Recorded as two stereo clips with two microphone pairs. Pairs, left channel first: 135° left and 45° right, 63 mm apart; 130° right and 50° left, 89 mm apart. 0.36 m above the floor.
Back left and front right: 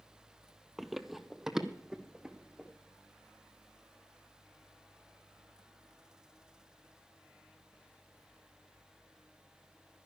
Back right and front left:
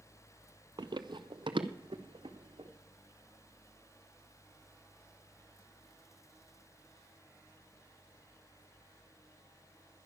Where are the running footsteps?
45° left, 0.5 m; by 2.7 s 35° left, 1.6 m.